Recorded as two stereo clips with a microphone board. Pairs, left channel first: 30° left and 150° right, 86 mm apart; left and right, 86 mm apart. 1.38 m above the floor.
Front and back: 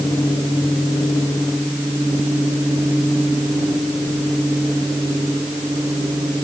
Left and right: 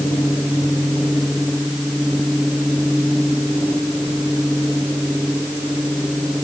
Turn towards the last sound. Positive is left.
No sound to turn to.